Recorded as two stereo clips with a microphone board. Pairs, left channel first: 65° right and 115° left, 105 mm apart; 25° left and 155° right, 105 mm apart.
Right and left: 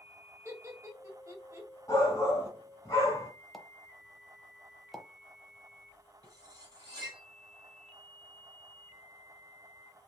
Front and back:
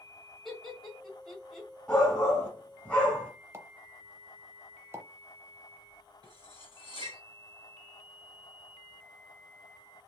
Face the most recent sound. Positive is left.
turn(degrees=160)